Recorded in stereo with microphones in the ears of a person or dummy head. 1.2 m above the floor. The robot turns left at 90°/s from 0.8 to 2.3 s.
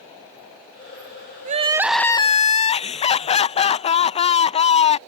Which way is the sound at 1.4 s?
135° right.